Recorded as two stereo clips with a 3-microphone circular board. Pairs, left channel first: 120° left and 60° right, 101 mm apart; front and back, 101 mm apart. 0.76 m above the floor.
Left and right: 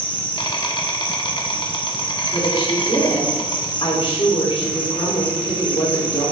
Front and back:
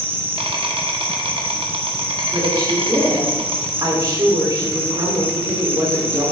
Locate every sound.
0.0 s an insect: 155° left, 1.0 m
2.3 s a woman speaking: 135° left, 2.5 m